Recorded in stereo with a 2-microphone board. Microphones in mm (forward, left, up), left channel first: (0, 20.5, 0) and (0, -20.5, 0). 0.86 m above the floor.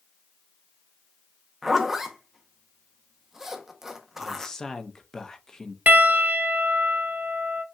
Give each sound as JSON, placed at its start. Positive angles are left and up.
{"t": 1.6, "sound": "a zipper", "side_deg": -10, "distance_m": 0.7}
{"t": 4.2, "sound": "a man speaking", "side_deg": 15, "distance_m": 0.5}
{"t": 5.9, "sound": "a piano", "side_deg": -40, "distance_m": 0.6}